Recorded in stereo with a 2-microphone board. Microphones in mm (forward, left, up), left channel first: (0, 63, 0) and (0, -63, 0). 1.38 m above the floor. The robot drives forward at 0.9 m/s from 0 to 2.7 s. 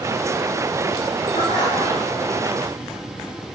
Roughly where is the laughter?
Left.